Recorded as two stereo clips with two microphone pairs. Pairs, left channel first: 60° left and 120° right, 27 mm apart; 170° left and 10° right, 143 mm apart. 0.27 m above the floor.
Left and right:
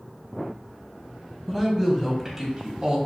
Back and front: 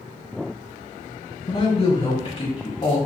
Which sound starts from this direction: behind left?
A woman speaking, at 1.5 s.